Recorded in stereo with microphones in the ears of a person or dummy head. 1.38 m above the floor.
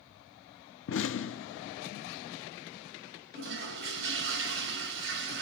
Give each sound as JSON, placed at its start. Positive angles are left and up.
{"t": 0.9, "sound": "an explosion", "side_deg": 65, "distance_m": 0.7}
{"t": 3.3, "sound": "a toilet flushing", "side_deg": -60, "distance_m": 4.0}